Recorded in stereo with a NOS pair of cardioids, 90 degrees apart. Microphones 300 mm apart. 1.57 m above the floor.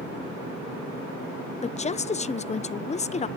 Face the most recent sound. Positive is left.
turn(degrees=25)